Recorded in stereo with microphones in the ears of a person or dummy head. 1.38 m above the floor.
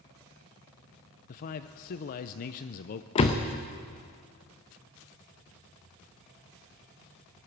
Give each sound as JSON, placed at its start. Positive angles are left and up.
{"t": 1.3, "sound": "a man speaking", "side_deg": 50, "distance_m": 0.5}
{"t": 3.1, "sound": "a door slam", "side_deg": 25, "distance_m": 0.7}